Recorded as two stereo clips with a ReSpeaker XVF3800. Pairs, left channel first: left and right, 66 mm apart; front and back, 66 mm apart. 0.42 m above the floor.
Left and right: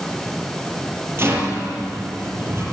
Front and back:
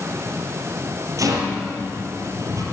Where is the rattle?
145° right, 3 m.